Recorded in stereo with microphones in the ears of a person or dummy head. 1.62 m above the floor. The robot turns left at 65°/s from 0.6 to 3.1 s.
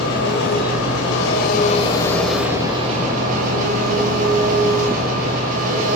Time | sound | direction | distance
0.0 | an engine running | 110° left | 6 m